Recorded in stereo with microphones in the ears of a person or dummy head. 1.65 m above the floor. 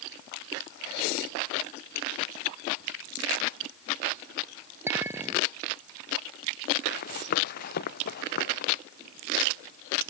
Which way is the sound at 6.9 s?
50° left (ahead or behind).